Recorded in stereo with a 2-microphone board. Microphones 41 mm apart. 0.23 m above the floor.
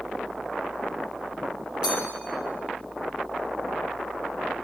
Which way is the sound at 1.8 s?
20° right (ahead or behind).